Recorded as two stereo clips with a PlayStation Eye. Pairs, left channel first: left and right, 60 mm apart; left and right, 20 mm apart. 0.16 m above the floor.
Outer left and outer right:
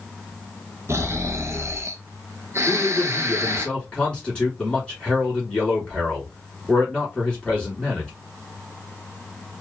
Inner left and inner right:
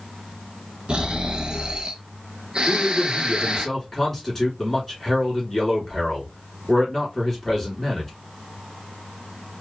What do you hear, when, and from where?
0.9 s snoring: 50° right (ahead or behind), 0.6 m
2.7 s a man speaking: 15° left (ahead or behind), 1.8 m